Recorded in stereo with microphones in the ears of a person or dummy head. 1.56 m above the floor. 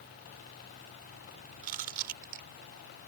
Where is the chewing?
50° right (ahead or behind).